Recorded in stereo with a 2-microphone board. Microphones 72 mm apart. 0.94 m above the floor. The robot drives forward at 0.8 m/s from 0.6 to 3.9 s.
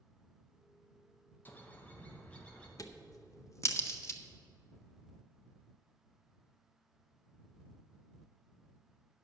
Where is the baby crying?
I don't hear a baby crying.